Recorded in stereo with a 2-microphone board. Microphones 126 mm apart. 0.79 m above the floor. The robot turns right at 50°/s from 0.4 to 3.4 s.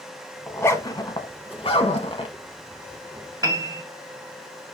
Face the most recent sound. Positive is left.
turn(degrees=-30)  # may be behind; listen again after turning